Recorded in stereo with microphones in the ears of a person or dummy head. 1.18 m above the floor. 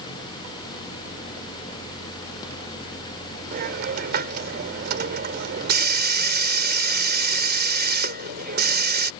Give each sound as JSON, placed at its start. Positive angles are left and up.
{"t": 3.5, "sound": "a hiss", "side_deg": -50}